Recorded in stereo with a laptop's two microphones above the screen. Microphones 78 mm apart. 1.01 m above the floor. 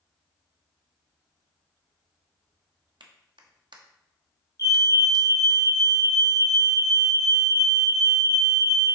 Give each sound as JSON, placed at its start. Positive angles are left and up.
{"t": 3.0, "sound": "a clap", "side_deg": -85, "distance_m": 1.1}
{"t": 4.6, "sound": "a fire alarm", "side_deg": 45, "distance_m": 2.0}